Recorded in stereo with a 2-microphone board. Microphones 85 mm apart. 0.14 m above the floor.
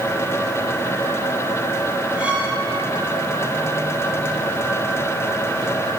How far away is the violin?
About 4 m.